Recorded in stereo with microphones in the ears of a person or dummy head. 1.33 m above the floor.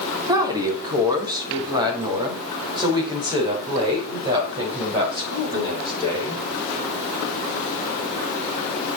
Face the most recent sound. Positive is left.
turn(degrees=-20)  # may be behind; listen again after turning